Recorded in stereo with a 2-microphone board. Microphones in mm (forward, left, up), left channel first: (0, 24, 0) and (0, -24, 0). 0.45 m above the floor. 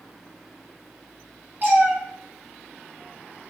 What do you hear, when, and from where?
1.6 s a cat meowing: 45° right (ahead or behind), 1.6 m